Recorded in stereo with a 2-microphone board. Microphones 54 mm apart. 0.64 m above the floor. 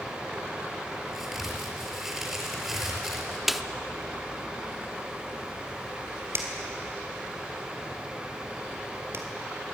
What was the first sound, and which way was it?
A crack, 10° right (ahead or behind).